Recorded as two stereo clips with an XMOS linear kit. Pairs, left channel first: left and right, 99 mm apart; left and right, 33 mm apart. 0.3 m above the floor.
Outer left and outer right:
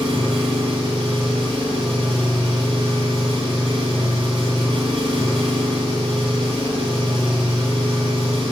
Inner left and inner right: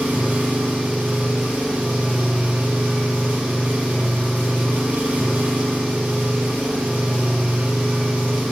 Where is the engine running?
80° right, 6.5 m.